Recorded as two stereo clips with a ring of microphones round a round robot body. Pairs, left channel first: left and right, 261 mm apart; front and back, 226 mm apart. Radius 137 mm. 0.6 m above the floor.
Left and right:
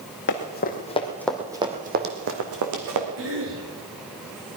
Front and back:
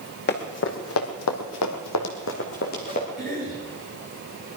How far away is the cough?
About 9 m.